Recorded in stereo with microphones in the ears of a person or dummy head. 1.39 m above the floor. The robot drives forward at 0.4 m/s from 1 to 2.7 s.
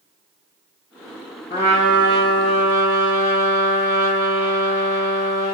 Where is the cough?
No cough in this recording.